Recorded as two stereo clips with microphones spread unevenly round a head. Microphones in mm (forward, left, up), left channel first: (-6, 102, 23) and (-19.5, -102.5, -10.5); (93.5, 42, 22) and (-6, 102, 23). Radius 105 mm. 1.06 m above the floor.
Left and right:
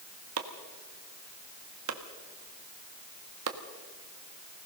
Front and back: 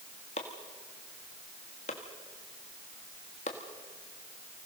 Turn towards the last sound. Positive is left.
turn(degrees=-80)